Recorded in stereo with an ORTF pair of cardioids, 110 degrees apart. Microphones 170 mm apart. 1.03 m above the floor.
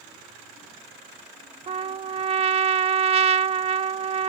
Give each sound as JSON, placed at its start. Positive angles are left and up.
{"t": 1.7, "sound": "a trumpet", "azimuth_deg": -35}